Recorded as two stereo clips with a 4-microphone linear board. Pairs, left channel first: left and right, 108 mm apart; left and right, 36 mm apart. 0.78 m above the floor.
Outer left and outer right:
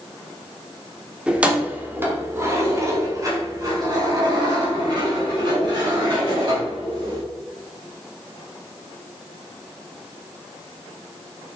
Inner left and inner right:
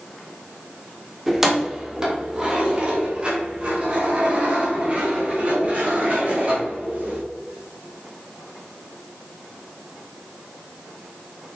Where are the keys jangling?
10° right (ahead or behind), 1.4 m; by 7.2 s 50° right (ahead or behind), 4 m.